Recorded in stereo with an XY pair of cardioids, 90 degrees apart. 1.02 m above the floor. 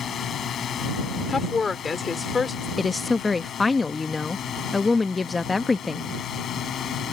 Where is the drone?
60° left; by 7.1 s 70° left.